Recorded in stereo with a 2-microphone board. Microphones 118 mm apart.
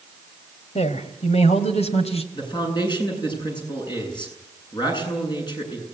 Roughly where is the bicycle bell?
I don't hear a bicycle bell.